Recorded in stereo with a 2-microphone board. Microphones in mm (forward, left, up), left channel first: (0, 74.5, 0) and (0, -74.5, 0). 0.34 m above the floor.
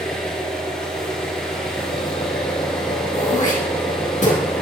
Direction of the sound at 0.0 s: 5° left (ahead or behind).